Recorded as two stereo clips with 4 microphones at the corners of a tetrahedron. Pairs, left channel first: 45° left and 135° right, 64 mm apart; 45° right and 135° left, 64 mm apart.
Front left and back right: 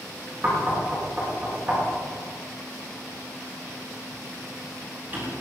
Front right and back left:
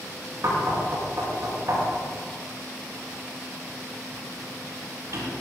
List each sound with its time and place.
0.4 s knocking: 170° left, 7.5 m